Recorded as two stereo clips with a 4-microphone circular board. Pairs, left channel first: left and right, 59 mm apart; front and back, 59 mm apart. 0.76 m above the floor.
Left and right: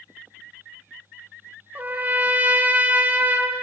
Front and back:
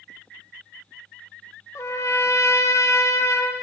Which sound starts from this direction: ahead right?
A trumpet, at 1.8 s.